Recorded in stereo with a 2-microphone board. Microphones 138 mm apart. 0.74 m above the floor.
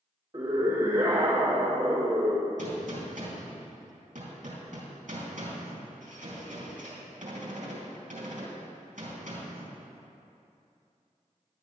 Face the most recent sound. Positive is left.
turn(degrees=-70)  # may be behind; listen again after turning